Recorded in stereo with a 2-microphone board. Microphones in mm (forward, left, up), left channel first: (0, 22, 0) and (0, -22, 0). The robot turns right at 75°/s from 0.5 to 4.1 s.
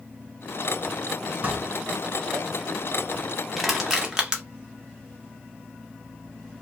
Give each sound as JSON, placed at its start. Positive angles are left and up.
{"t": 1.4, "sound": "dishes clattering", "side_deg": -40, "distance_m": 1.8}
{"t": 3.6, "sound": "crushing", "side_deg": 0, "distance_m": 0.7}